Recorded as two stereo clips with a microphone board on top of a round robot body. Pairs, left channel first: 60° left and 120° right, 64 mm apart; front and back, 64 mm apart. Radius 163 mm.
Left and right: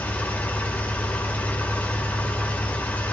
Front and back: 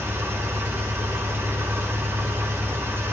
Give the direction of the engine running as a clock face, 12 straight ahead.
8 o'clock.